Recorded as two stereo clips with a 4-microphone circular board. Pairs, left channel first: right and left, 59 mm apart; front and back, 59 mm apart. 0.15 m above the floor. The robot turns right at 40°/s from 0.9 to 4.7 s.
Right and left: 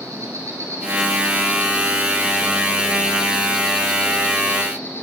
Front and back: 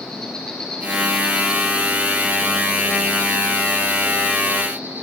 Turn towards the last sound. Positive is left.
turn(degrees=-130)